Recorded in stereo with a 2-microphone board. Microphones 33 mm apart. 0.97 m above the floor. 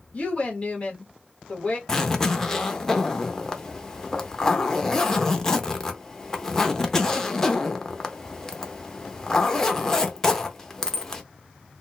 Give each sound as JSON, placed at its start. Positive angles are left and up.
{"t": 0.1, "sound": "a woman speaking", "side_deg": 35, "distance_m": 1.5}
{"t": 1.9, "sound": "a zipper", "side_deg": 15, "distance_m": 0.7}